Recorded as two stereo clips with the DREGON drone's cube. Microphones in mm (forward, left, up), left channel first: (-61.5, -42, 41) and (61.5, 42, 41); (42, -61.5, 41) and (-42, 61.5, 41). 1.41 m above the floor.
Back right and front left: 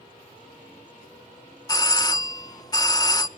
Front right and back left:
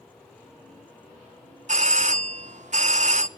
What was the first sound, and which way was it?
A doorbell, 155° left.